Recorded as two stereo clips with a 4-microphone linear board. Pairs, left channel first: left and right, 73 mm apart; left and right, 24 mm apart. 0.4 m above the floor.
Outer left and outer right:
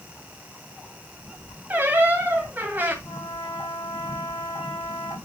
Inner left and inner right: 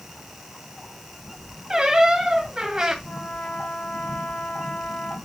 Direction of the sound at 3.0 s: 65° left (ahead or behind).